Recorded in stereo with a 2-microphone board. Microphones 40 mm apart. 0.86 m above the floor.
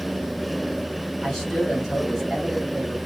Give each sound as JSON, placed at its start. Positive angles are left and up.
{"t": 1.2, "sound": "a man speaking", "side_deg": 10, "distance_m": 1.4}